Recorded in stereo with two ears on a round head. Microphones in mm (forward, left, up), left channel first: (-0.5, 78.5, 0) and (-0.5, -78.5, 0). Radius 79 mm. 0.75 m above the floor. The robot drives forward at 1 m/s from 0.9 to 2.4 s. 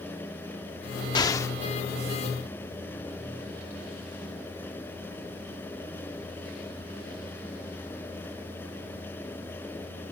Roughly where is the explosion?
Left.